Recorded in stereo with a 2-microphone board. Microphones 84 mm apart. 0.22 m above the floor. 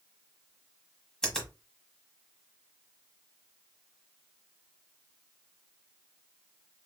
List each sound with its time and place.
1.2 s a finger snap: 5° left (ahead or behind), 1.2 m